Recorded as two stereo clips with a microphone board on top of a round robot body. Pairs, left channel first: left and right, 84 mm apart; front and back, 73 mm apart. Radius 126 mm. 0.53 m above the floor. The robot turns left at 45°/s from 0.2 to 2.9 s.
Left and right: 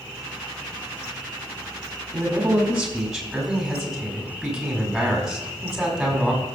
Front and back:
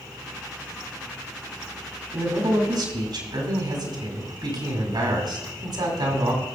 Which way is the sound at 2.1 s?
145° right.